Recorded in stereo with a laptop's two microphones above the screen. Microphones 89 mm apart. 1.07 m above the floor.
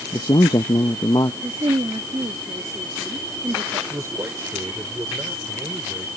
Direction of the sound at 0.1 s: 50° left (ahead or behind).